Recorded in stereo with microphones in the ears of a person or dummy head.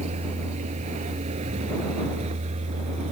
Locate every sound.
0.0 s a vehicle: 35° right (ahead or behind)